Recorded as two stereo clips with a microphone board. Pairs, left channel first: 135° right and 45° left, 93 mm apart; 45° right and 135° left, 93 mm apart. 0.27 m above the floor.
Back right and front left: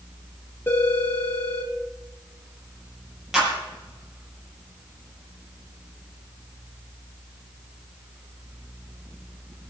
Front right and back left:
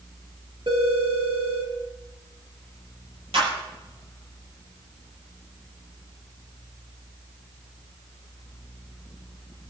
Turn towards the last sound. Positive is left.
turn(degrees=130)